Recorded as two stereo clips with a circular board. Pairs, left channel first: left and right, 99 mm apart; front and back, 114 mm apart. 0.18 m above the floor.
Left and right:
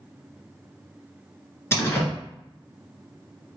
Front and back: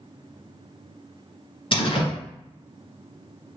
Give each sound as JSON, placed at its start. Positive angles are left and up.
{"t": 1.7, "sound": "a door slam", "azimuth_deg": 30, "distance_m": 1.7}